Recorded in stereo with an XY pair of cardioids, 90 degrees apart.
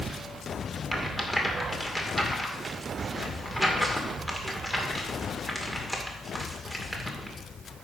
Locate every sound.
0.9 s a rattle: 10° left, 2 m